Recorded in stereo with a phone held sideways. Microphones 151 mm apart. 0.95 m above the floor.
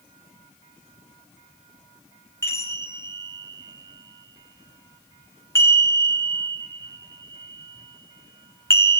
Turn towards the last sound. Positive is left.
turn(degrees=20)  # may be behind; listen again after turning